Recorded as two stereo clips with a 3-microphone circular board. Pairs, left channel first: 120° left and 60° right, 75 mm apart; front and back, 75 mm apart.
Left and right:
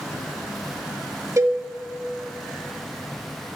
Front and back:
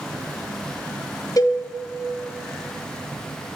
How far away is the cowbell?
About 0.9 m.